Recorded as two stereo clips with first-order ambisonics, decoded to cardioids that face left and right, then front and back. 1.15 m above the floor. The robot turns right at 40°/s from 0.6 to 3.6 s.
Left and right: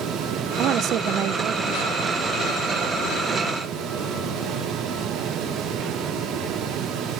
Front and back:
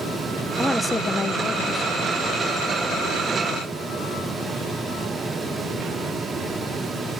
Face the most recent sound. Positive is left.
turn(degrees=25)